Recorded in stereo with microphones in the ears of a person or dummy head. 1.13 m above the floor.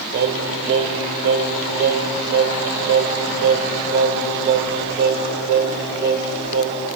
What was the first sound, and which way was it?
Singing, 55° right (ahead or behind).